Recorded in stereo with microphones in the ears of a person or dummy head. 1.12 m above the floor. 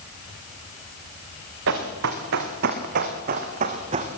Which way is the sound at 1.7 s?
60° right (ahead or behind).